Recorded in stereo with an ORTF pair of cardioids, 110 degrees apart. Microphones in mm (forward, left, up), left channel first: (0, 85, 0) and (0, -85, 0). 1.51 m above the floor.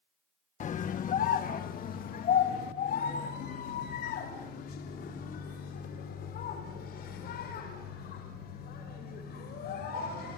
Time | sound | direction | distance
0.6 | a scream | 50° left | 1.6 m